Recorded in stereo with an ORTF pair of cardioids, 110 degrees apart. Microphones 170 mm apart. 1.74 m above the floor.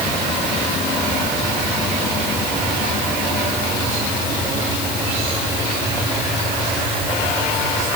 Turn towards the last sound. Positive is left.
No sound to turn to.